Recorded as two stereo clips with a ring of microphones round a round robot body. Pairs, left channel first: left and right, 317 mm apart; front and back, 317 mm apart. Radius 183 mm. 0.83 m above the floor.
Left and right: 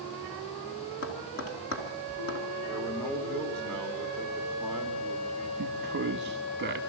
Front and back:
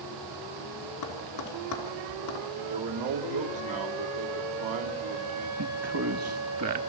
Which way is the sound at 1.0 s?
45° left.